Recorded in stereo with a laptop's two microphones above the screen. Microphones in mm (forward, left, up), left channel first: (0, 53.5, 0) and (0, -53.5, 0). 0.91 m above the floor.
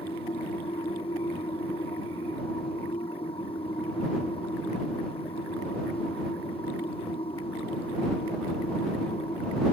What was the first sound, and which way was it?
A machine running, 60° left (ahead or behind).